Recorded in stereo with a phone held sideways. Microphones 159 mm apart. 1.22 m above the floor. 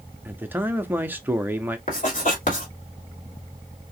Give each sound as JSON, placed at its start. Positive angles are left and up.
{"t": 0.2, "sound": "a man speaking", "side_deg": -10, "distance_m": 0.8}
{"t": 1.9, "sound": "writing", "side_deg": 55, "distance_m": 2.5}